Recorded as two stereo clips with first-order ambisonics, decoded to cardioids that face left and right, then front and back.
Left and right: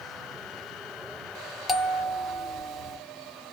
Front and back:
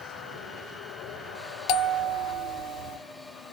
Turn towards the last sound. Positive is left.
turn(degrees=0)